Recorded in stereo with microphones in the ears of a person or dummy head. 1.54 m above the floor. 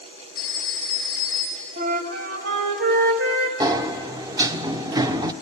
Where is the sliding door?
25° right (ahead or behind), 0.7 m.